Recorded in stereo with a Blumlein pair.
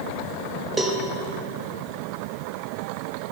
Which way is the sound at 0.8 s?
5° right.